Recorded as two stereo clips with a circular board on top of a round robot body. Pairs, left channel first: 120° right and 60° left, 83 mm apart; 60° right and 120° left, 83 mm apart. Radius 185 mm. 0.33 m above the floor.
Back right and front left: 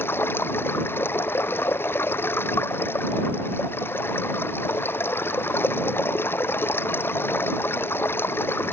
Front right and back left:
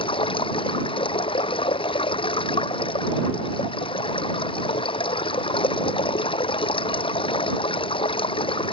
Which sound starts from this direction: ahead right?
Running water, at 0.0 s.